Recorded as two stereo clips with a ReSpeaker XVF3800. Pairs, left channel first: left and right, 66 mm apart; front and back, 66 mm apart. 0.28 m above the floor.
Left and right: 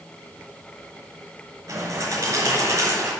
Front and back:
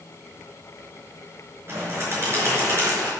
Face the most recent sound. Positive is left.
turn(degrees=-130)